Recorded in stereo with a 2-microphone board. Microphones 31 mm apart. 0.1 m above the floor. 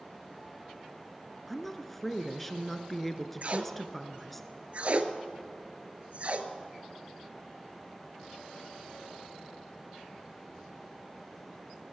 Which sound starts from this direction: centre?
A woman speaking, at 1.5 s.